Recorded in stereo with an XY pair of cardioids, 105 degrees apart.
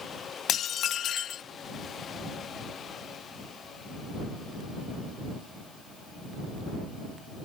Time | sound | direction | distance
0.5 | dishes clattering | 65° left | ?